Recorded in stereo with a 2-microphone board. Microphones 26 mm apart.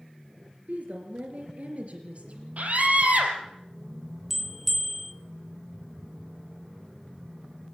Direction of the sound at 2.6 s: 70° right (ahead or behind).